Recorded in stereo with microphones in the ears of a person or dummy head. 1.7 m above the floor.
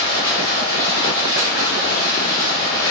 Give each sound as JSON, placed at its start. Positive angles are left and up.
{"t": 0.0, "sound": "running water", "side_deg": 25, "distance_m": 1.1}